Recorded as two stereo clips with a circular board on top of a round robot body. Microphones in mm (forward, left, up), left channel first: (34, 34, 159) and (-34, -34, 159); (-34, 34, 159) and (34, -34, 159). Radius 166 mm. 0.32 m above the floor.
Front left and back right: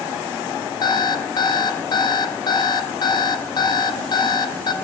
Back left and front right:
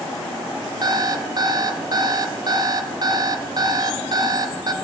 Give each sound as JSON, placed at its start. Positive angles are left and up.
{"t": 0.8, "sound": "an alarm clock", "azimuth_deg": 0, "distance_m": 0.7}